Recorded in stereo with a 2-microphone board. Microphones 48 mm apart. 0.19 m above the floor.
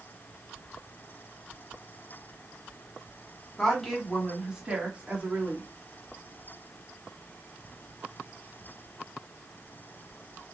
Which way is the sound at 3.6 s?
10° left (ahead or behind).